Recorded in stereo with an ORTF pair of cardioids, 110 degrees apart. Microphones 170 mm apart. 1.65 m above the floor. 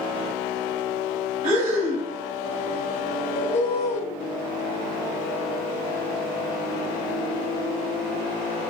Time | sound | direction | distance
1.4 | breathing | 60° right | 1.2 m
3.4 | a bird | 40° left | 0.6 m